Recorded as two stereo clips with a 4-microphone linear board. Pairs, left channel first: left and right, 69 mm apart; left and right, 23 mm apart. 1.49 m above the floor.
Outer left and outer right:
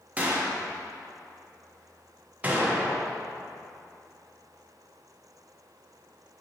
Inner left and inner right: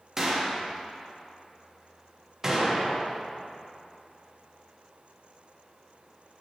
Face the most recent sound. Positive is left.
turn(degrees=-20)  # may be behind; listen again after turning